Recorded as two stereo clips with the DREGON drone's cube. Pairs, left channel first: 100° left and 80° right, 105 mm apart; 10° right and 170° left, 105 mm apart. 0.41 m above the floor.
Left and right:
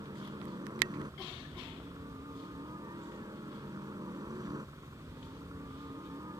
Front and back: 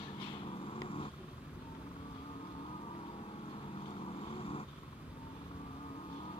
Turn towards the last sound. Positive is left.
turn(degrees=-25)